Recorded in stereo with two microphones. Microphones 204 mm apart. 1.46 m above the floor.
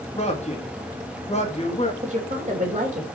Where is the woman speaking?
35° right (ahead or behind), 2.5 m.